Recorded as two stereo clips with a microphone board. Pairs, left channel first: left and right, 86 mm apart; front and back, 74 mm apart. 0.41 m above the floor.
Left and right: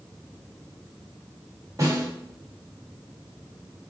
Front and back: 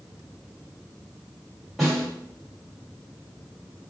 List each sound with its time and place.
1.8 s a snare drum: 90° right, 1.8 m